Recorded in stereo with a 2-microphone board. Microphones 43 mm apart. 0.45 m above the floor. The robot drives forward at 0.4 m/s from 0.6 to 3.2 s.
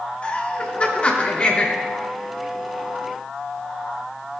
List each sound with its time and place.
0.2 s laughter: 35° left (ahead or behind), 1.8 m; by 1.7 s 30° left (ahead or behind), 2 m